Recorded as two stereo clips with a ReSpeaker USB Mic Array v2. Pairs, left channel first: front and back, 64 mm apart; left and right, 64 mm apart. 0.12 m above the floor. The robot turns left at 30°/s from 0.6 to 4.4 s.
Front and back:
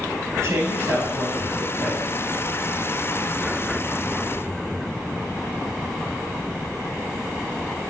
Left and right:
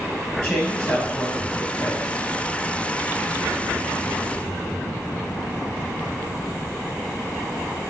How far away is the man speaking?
About 3 m.